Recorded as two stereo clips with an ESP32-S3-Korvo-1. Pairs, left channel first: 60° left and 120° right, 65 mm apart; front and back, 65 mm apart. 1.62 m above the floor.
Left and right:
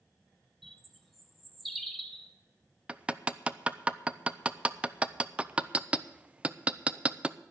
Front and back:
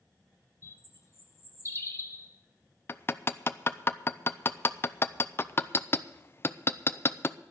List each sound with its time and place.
0.6 s a bird: 30° right, 1.3 m
2.9 s hammering: 50° right, 0.5 m